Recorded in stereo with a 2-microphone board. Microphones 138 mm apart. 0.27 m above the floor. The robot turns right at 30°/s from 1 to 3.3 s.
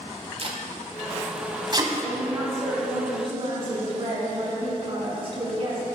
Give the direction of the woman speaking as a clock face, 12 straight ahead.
6 o'clock.